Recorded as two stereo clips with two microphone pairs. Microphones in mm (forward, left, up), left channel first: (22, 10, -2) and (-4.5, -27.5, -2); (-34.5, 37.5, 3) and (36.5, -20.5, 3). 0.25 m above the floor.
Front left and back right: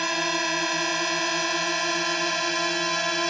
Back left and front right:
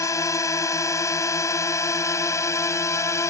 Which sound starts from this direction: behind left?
A drone, at 0.0 s.